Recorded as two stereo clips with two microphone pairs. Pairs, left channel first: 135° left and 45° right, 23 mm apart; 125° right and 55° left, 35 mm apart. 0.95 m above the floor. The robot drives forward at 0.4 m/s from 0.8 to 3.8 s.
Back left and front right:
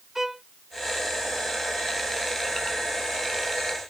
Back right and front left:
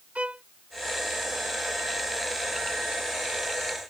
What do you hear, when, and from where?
0.1 s a violin: 25° left